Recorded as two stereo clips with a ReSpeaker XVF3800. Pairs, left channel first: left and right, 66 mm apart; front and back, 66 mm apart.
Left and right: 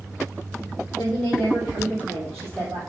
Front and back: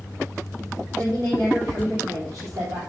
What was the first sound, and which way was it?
A woman speaking, 175° left.